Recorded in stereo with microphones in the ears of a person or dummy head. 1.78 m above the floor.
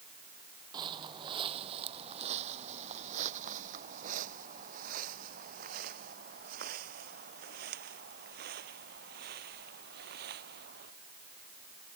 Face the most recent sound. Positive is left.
turn(degrees=-60)  # may be behind; listen again after turning